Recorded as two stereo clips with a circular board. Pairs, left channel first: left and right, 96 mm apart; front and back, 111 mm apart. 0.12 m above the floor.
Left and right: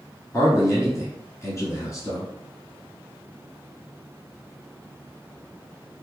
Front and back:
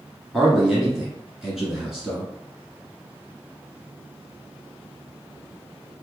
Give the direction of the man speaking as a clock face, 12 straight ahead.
9 o'clock.